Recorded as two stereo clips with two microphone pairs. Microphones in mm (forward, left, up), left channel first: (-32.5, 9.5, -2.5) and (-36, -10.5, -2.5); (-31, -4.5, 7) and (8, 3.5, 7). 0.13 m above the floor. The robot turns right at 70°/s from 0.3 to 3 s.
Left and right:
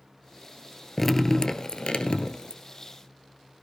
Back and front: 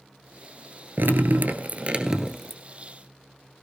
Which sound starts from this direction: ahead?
Dripping, at 1.0 s.